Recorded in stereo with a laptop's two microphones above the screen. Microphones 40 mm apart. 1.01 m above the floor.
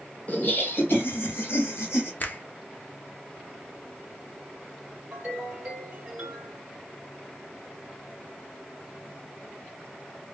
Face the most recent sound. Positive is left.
turn(degrees=-30)  # may be behind; listen again after turning